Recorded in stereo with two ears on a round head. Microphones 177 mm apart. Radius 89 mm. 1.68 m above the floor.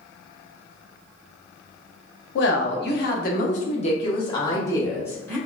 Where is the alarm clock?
No alarm clock in this recording.